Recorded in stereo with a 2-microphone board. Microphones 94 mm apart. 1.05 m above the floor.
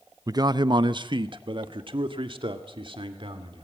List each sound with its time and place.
0.3 s a man speaking: 40° right (ahead or behind), 0.5 m; by 3.6 s 65° right (ahead or behind), 2.5 m